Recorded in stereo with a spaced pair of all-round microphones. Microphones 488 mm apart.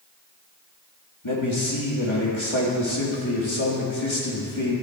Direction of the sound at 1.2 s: 70° left (ahead or behind).